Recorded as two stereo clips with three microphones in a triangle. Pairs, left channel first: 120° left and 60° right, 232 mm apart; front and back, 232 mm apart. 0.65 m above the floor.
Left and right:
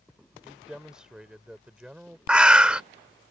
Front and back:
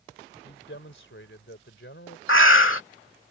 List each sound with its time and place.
0.4 s a man speaking: 25° left
2.3 s a bird: 25° left